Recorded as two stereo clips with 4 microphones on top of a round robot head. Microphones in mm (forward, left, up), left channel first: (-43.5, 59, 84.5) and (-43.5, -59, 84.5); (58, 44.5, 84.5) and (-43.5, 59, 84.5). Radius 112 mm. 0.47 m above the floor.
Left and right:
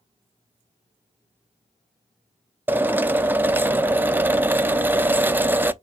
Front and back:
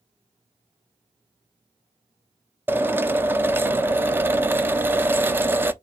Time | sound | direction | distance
2.7 | a drill | 145° right | 0.7 m